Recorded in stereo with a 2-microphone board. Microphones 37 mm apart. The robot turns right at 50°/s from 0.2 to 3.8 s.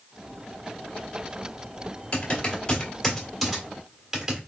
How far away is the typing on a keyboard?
About 1.8 m.